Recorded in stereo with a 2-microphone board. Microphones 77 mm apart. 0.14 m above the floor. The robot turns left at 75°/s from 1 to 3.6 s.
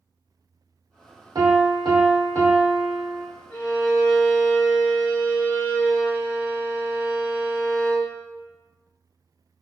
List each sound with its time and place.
1.4 s a piano: 60° right, 1.0 m; by 3.2 s 155° left, 1.0 m
3.5 s a violin: 10° left (ahead or behind), 1.3 m; by 8.1 s 15° left (ahead or behind), 1.3 m